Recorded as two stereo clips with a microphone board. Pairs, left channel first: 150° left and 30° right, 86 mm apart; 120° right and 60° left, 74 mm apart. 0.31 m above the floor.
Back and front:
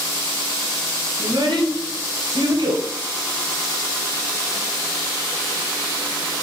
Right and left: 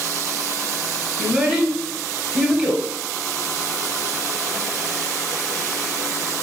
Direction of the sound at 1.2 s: 10° right.